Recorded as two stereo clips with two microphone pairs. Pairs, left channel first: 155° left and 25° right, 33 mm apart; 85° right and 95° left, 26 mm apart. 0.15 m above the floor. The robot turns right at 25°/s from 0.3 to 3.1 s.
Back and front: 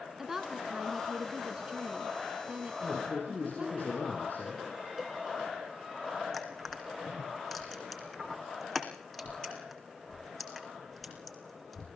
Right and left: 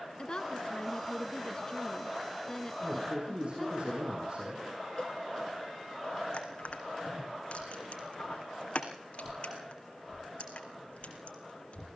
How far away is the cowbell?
About 1.2 m.